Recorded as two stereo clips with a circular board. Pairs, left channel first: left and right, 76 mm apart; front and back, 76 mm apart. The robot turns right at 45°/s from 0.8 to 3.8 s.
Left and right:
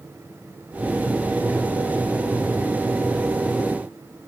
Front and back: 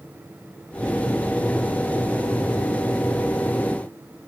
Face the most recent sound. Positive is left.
No sound to turn to.